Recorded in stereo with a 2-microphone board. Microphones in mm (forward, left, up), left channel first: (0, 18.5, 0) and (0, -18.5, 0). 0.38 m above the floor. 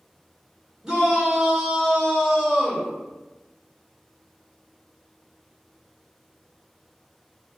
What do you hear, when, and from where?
0.8 s a shout: 20° right (ahead or behind), 0.8 m